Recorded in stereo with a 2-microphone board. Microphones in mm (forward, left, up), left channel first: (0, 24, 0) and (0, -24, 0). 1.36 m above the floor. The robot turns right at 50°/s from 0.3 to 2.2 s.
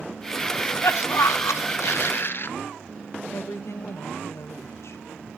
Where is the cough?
40° left, 1.0 m; by 2.5 s 130° left, 1.0 m.